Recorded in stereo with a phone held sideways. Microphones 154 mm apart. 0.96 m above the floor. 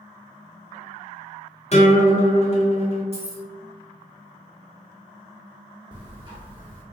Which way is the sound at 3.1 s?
40° right (ahead or behind).